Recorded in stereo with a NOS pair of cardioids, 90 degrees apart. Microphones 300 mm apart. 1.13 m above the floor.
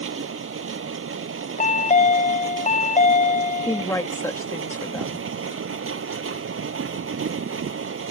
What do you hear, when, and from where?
0.0 s a machine running: 45° right
1.6 s a chime: 25° left
3.7 s a woman speaking: 10° left